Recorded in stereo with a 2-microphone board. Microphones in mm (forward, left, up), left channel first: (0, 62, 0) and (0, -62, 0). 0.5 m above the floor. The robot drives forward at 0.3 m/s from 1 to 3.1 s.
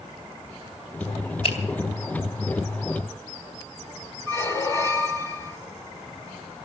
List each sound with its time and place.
1.4 s a finger snap: 55° left (ahead or behind), 2.5 m
4.3 s a squeak: 25° left (ahead or behind), 1.2 m